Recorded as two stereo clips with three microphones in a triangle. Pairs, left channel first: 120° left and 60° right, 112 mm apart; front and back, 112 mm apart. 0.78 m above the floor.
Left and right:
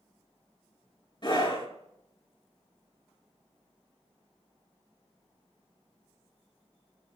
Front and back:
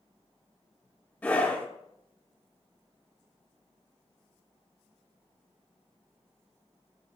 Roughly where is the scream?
Left.